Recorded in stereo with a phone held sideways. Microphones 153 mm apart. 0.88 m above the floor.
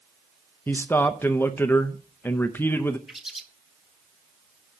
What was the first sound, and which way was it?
A man speaking, 15° left (ahead or behind).